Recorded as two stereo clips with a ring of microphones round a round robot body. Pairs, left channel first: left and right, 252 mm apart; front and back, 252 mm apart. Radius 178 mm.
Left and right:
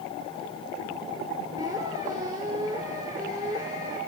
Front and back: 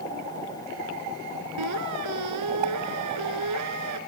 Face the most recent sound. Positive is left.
turn(degrees=-170)